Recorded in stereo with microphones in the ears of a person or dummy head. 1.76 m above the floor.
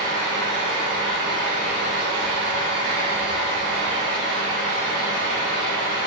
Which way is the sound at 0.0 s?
65° right (ahead or behind).